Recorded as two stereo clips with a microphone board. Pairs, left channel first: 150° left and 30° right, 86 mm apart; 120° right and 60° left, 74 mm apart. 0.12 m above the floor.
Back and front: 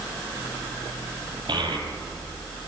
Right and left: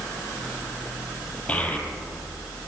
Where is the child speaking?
50° right, 2.5 m.